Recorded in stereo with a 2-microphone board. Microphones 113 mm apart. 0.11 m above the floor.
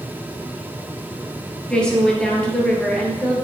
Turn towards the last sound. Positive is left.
turn(degrees=5)  # may be behind; listen again after turning